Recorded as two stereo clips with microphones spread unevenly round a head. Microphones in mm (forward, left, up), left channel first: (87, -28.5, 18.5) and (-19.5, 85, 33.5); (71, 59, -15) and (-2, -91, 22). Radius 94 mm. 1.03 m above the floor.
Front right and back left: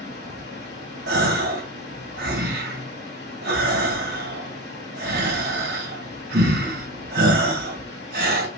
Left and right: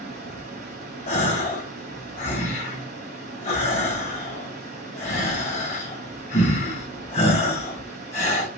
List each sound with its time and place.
0.0 s running water: 80° right, 4 m
1.1 s a gasp: 120° left, 1.7 m